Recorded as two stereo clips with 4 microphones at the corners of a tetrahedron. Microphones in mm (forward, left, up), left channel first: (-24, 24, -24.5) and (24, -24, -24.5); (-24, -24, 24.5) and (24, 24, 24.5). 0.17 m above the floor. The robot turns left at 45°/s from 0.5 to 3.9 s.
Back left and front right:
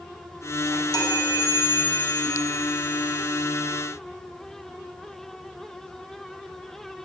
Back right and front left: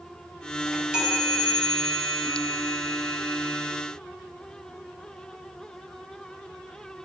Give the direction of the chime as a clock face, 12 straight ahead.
8 o'clock.